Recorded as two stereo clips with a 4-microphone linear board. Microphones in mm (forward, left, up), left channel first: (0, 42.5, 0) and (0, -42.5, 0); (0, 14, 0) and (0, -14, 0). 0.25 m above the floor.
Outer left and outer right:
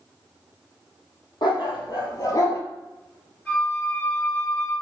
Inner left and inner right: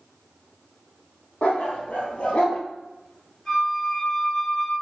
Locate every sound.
1.4 s a dog barking: 60° left (ahead or behind), 2 m; by 2.6 s 35° left (ahead or behind), 1.2 m
3.5 s a flute: 20° left (ahead or behind), 3 m